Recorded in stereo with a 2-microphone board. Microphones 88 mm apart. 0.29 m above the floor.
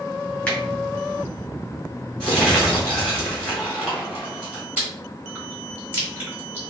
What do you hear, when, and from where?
0.5 s a finger snap: 20° left (ahead or behind), 1.9 m
2.2 s crumpling: 10° left (ahead or behind), 1.7 m
4.8 s chewing: 20° right (ahead or behind), 1.4 m